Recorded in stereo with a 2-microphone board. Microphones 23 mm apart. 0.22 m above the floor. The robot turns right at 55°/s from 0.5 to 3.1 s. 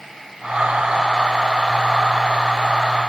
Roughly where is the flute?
I don't hear a flute.